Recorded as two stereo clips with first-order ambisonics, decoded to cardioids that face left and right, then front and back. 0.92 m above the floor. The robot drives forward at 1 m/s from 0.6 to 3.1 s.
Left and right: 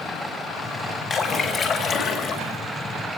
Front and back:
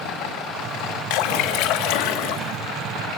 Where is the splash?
25° left, 3.5 m; by 2.6 s 35° left, 2.5 m.